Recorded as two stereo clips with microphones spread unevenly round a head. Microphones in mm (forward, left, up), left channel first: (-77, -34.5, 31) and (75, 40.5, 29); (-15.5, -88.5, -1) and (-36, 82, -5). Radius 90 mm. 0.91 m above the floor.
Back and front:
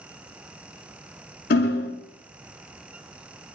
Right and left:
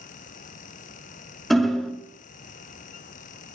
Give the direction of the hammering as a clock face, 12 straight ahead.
6 o'clock.